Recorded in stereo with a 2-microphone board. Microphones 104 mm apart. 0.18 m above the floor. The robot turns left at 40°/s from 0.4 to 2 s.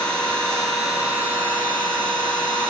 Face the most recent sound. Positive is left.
turn(degrees=-50)